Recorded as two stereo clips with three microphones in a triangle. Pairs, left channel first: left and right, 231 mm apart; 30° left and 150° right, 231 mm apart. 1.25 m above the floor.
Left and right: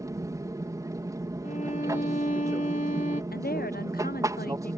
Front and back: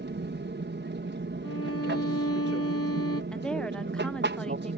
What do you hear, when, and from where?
0.0 s an aircraft: 160° right
1.4 s a violin: 35° left
3.3 s a woman speaking: 115° left